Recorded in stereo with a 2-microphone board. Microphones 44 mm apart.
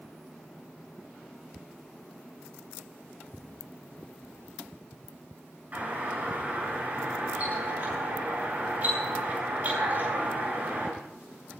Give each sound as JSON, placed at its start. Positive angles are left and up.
{"t": 5.7, "sound": "a doorbell", "side_deg": -35, "distance_m": 8.5}